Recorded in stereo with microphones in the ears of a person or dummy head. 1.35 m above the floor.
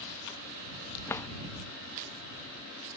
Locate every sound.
1.1 s a drawer: 5° left (ahead or behind)